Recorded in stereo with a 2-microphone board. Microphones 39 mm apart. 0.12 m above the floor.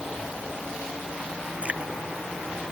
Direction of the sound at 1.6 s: 40° right (ahead or behind).